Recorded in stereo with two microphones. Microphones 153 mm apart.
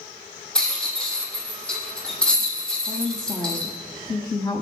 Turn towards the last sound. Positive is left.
turn(degrees=25)  # may be behind; listen again after turning